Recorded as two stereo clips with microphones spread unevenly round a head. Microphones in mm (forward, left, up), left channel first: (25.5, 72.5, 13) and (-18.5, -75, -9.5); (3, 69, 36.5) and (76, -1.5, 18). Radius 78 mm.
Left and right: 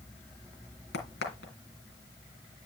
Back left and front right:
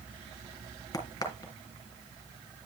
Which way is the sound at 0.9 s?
90° left.